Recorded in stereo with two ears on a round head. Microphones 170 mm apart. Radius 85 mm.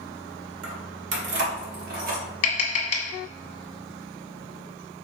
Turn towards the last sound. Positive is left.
turn(degrees=35)  # may be behind; listen again after turning